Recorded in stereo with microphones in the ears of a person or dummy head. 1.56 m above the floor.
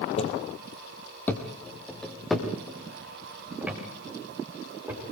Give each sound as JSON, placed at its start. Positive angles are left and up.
{"t": 0.2, "sound": "footsteps", "side_deg": 35, "distance_m": 2.5}